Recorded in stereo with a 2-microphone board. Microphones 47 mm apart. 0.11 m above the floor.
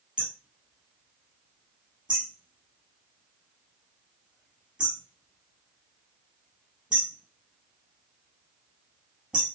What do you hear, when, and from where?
0.2 s hammering: 15° right (ahead or behind), 2 m